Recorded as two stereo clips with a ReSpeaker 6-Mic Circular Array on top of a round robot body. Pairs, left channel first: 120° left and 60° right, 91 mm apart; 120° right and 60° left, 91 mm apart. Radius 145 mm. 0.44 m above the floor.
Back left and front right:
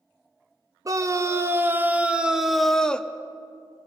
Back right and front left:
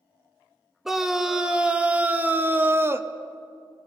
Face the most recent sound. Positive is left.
turn(degrees=60)